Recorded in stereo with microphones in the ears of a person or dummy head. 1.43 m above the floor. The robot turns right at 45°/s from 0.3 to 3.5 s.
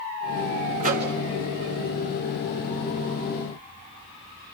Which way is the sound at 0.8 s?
40° right (ahead or behind).